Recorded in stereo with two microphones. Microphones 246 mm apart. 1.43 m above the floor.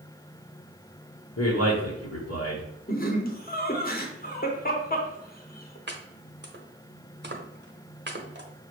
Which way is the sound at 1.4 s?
75° left (ahead or behind).